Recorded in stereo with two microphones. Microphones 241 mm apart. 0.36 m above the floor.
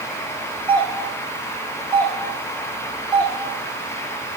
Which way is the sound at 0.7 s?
10° left (ahead or behind).